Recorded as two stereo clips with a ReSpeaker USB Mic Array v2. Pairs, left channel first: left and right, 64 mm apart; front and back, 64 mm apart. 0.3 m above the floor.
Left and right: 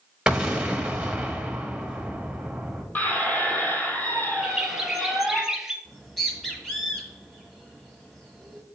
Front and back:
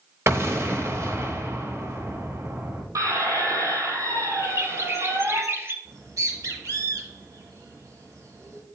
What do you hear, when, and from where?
0.3 s an explosion: 165° right, 1.1 m
3.0 s a squeak: 150° left, 1.5 m
4.4 s a bird: 170° right, 0.6 m
5.8 s a bird: 175° left, 1.6 m